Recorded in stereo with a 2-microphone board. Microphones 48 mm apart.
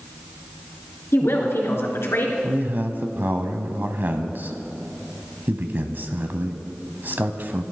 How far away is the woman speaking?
About 3 m.